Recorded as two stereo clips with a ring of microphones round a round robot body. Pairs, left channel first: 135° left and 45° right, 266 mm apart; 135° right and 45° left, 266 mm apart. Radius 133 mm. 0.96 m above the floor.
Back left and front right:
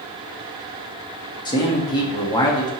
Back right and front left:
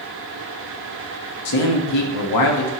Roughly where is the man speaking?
Behind right.